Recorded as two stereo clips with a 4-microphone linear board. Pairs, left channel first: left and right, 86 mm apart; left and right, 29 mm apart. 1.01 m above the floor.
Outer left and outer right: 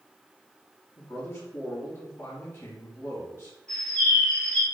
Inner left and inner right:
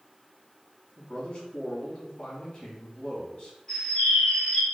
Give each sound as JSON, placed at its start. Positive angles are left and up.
{"t": 1.0, "sound": "a man speaking", "side_deg": 25, "distance_m": 1.9}
{"t": 3.7, "sound": "a bird", "side_deg": 10, "distance_m": 1.9}